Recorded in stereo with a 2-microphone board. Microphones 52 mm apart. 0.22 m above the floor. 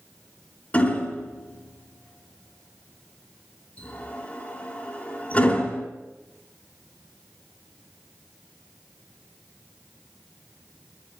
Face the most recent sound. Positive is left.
turn(degrees=25)  # may be behind; listen again after turning